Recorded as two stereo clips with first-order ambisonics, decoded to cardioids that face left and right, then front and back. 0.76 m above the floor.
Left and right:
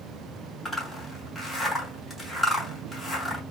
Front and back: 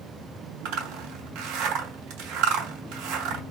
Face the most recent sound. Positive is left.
turn(degrees=165)